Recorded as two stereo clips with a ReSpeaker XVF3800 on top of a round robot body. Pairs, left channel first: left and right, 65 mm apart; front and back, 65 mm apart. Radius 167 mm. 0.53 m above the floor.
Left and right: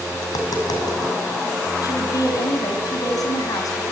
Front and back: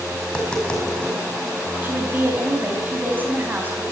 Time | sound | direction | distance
0.2 | tapping | 75° left | 5.5 m
1.8 | a woman speaking | 115° left | 5 m